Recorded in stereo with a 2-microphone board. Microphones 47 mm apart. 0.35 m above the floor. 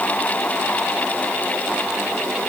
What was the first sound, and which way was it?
Only background noise.